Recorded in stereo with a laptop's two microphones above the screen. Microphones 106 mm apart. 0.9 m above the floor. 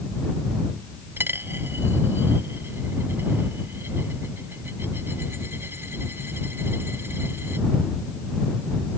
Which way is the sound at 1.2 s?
20° right (ahead or behind).